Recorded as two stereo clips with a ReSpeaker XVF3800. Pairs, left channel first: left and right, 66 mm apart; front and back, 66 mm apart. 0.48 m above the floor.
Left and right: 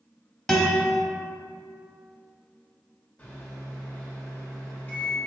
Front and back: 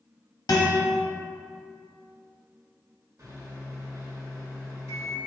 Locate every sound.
0.5 s a guitar: 5° left, 1.0 m
3.2 s a microwave: 155° left, 1.1 m